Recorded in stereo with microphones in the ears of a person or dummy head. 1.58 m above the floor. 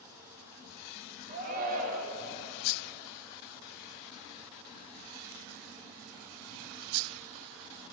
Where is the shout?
40° right (ahead or behind), 1.3 m.